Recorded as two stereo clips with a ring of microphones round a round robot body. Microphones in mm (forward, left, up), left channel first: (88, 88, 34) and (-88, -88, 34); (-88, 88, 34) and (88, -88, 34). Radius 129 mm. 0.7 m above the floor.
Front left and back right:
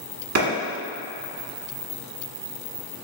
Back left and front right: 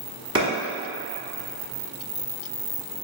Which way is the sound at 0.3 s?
115° right.